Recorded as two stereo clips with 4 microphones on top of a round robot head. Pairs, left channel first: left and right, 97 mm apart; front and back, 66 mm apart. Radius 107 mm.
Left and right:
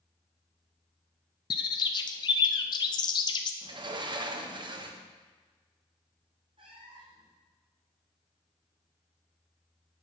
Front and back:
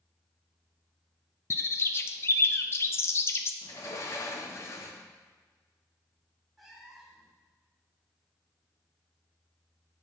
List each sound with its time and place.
1.5 s a bird: 50° left, 0.6 m
3.6 s a sliding door: 50° right, 1.0 m
6.6 s a cat meowing: 90° right, 0.9 m